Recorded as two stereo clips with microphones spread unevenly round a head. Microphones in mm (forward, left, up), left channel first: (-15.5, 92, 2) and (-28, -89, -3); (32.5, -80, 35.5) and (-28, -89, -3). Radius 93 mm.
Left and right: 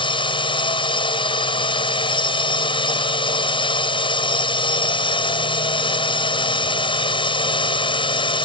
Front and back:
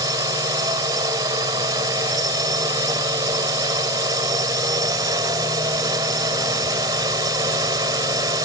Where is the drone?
150° left.